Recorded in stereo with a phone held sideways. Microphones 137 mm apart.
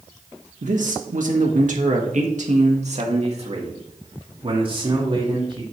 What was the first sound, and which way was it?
A man speaking, 65° right (ahead or behind).